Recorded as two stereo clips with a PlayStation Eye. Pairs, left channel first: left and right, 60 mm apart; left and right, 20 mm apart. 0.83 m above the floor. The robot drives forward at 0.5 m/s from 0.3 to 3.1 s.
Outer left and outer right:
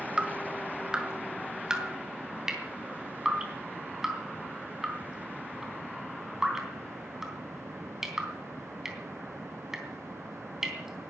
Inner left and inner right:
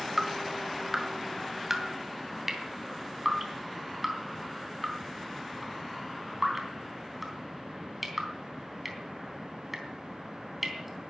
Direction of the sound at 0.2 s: 20° right (ahead or behind).